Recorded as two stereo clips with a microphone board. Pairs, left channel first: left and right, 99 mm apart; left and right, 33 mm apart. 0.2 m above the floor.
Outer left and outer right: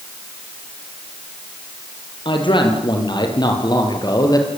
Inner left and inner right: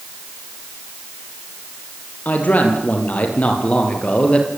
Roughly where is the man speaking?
Left.